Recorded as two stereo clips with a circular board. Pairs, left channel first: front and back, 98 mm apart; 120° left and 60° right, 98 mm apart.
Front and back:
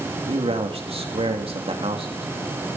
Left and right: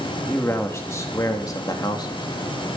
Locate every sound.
0.3 s a man speaking: 170° right, 2.5 m; by 2.3 s 165° left, 3 m